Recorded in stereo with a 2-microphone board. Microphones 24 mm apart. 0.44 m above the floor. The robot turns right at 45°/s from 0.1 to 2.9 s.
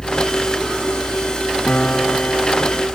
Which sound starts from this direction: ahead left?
A piano, at 1.7 s.